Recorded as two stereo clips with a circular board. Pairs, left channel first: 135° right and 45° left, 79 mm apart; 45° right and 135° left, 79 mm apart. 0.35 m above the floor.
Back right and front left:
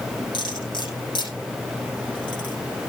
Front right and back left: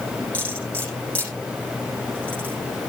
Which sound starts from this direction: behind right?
Cutlery clinking, at 0.3 s.